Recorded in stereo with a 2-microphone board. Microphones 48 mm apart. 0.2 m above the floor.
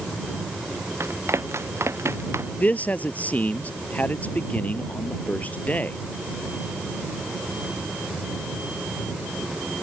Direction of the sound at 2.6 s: 35° left (ahead or behind).